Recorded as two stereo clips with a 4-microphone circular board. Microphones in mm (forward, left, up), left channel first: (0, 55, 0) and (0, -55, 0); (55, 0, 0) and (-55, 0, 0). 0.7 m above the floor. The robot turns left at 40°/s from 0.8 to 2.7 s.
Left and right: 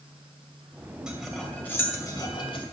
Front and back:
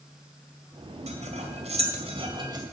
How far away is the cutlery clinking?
About 2.5 m.